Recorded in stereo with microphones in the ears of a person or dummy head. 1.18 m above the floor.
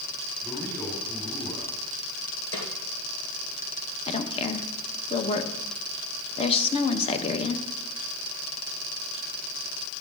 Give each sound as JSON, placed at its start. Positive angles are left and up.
{"t": 0.4, "sound": "a man speaking", "side_deg": 10, "distance_m": 3.5}
{"t": 2.5, "sound": "a snare drum", "side_deg": 75, "distance_m": 3.5}
{"t": 4.1, "sound": "a woman speaking", "side_deg": 30, "distance_m": 1.2}